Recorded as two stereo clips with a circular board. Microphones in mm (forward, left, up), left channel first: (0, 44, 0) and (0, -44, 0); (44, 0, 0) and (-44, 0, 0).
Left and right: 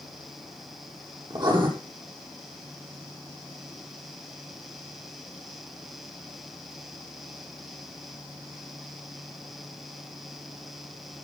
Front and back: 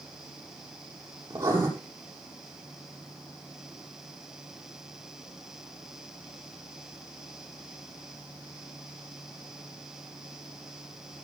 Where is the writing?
125° right, 6.5 m.